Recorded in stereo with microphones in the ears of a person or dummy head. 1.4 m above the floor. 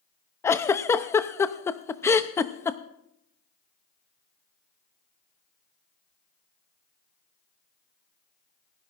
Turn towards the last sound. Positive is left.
turn(degrees=15)  # may be behind; listen again after turning